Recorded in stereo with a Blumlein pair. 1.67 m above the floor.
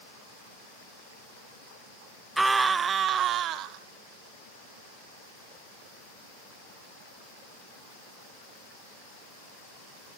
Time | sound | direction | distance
2.4 | a scream | 5° right | 0.8 m